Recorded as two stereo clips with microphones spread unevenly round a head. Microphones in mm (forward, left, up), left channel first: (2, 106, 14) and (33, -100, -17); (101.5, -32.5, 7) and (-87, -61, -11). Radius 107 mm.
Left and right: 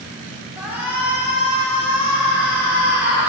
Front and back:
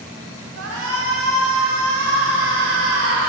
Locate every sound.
0.6 s a shout: 165° right, 4 m